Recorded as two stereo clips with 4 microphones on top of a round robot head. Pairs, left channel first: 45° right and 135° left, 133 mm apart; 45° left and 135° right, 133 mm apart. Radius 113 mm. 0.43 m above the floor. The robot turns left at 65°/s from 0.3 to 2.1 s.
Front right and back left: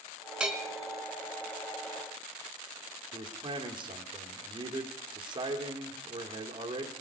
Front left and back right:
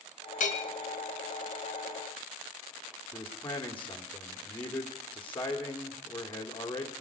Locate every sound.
0.4 s a bell: 55° left, 1.4 m; by 0.7 s 35° left, 1.4 m
3.1 s a man speaking: 110° left, 1.3 m